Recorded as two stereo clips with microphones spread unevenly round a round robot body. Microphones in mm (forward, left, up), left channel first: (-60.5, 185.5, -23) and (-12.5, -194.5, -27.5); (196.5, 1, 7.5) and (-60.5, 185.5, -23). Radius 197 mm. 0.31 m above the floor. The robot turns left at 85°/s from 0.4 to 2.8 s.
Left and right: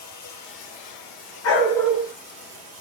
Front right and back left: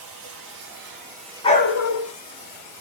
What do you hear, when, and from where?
0.0 s running water: 145° left, 6 m; by 2.8 s 60° right, 6 m
1.4 s a dog barking: 40° left, 1.7 m; by 2.1 s 15° right, 1.7 m